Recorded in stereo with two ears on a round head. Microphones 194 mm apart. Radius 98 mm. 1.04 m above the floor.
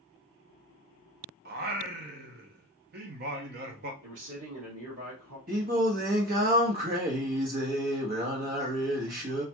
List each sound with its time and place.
1.4 s singing: 45° right (ahead or behind), 0.6 m
4.0 s a man speaking: 70° right (ahead or behind), 1.8 m
5.5 s singing: 40° right (ahead or behind), 1.0 m